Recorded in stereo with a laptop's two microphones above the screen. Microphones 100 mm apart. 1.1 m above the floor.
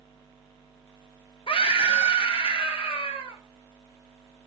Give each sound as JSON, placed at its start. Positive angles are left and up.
{"t": 1.5, "sound": "a scream", "side_deg": 60, "distance_m": 1.5}